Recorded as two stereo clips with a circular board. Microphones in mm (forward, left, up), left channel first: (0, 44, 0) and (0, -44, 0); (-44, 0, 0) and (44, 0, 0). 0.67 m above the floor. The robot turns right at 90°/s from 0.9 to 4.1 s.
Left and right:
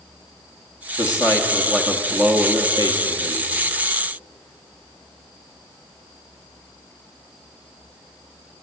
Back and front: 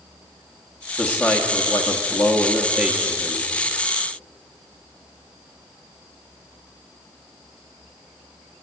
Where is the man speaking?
105° left, 1.3 m; by 3.5 s 30° right, 1.3 m.